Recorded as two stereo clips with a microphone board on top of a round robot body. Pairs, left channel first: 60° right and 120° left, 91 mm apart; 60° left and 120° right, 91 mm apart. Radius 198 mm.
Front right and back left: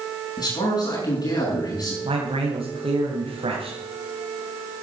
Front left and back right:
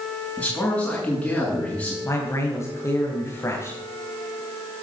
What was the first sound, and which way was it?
A man speaking, 20° right.